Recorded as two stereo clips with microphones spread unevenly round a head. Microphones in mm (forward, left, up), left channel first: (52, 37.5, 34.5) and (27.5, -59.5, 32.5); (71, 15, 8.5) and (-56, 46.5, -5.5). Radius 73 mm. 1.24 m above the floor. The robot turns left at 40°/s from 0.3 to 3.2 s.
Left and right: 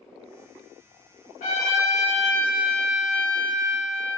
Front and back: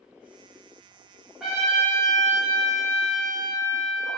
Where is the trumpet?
75° left, 1.1 m; by 4.2 s 5° left, 1.1 m.